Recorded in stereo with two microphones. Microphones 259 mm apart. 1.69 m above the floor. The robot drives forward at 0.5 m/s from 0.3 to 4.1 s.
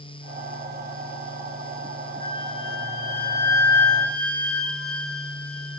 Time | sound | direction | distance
2.2 | a flute | 45° right (ahead or behind) | 6.5 m